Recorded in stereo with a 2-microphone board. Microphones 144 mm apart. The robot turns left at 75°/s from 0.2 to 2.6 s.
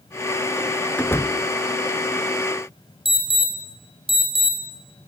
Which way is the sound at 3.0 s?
40° right (ahead or behind).